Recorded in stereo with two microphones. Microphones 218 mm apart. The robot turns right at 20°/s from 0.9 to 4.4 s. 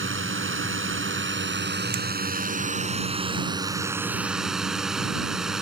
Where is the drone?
70° right; by 5.6 s straight ahead.